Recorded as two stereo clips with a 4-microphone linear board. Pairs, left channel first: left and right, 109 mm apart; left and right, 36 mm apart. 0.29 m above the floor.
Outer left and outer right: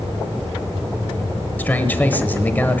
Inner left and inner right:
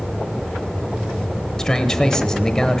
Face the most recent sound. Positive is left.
turn(degrees=15)  # may be behind; listen again after turning